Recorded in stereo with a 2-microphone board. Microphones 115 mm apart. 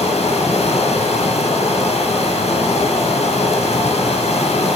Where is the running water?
75° left (ahead or behind), 0.9 m.